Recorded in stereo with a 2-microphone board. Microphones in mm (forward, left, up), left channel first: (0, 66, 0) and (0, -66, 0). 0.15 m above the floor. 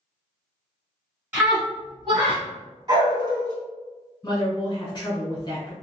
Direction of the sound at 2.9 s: 30° right (ahead or behind).